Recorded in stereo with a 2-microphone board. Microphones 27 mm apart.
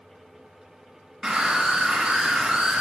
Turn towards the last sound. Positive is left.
turn(degrees=-15)  # may be behind; listen again after turning